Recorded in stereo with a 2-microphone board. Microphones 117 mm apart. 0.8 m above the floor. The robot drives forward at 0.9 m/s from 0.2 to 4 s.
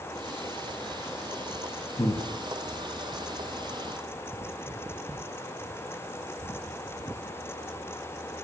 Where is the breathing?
30° left (ahead or behind), 0.7 m.